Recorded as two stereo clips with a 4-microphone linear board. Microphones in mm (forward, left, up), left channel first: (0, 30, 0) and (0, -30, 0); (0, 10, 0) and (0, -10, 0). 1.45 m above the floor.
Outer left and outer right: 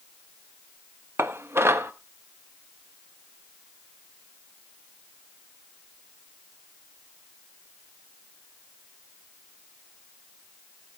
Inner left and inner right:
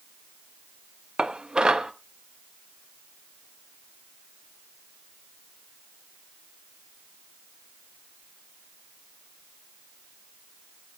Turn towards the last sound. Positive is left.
turn(degrees=-50)  # may be behind; listen again after turning